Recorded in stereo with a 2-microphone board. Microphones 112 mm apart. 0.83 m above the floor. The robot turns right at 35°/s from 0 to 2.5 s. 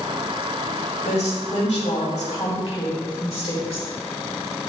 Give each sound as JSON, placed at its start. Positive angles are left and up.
{"t": 1.0, "sound": "a woman speaking", "azimuth_deg": 70, "distance_m": 2.0}